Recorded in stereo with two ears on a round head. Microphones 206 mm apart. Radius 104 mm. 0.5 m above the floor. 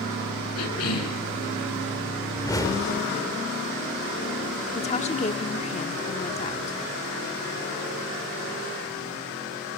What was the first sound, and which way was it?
A cough, 75° left (ahead or behind).